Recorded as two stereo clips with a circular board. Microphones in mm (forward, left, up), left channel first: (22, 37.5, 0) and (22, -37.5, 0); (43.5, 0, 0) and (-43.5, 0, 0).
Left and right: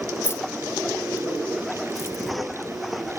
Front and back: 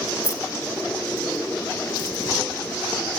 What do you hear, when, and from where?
0.2 s keys jangling: 45° left, 1.0 m